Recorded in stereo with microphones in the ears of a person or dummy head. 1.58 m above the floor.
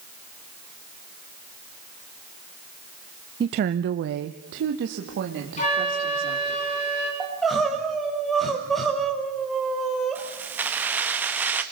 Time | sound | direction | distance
3.4 | a woman speaking | 25° right (ahead or behind) | 0.6 m
5.6 | a flute | 35° left (ahead or behind) | 6.5 m
7.2 | crying | centre (ahead or behind) | 4 m
10.2 | keys jangling | 10° right (ahead or behind) | 1.7 m